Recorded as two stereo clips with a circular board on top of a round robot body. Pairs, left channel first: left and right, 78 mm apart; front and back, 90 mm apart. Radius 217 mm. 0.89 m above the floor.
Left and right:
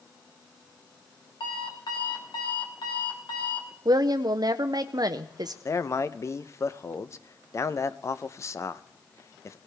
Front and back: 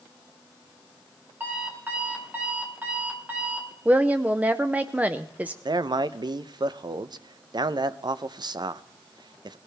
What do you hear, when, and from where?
1.4 s an alarm clock: 110° left, 2 m
3.9 s a woman speaking: 110° right, 0.7 m
5.7 s a man speaking: 140° left, 0.6 m